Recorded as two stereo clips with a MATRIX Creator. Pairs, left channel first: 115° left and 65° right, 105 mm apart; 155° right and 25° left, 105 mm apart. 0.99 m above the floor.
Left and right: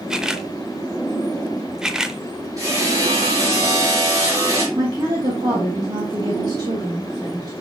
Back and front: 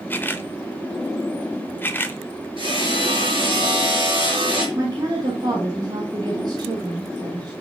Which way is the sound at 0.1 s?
140° right.